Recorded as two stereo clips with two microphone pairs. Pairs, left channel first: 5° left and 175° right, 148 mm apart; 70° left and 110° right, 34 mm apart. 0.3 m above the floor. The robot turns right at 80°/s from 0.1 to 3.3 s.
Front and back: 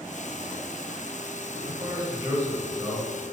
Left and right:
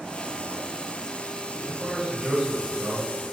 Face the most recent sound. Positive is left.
turn(degrees=-80)